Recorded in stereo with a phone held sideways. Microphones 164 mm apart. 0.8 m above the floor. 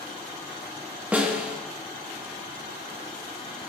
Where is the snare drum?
10° right (ahead or behind), 1.0 m.